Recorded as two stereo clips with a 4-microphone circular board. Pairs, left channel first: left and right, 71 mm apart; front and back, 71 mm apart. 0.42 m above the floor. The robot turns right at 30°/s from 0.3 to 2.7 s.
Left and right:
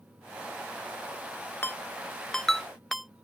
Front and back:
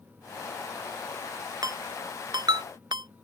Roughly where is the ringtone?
Behind left.